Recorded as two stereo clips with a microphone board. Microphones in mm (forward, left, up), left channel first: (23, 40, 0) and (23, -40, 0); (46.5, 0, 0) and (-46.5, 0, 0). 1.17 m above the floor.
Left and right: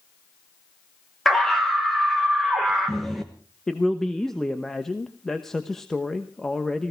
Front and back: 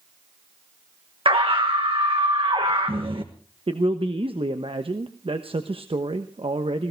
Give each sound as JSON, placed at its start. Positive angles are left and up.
{"t": 1.2, "sound": "a scream", "azimuth_deg": 180, "distance_m": 1.2}
{"t": 3.7, "sound": "a man speaking", "azimuth_deg": 175, "distance_m": 1.0}